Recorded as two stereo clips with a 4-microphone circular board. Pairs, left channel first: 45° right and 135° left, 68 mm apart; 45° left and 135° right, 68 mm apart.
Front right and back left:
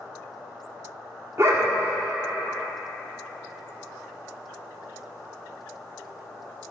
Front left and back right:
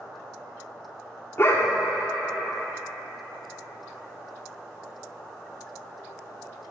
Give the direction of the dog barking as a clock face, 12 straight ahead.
9 o'clock.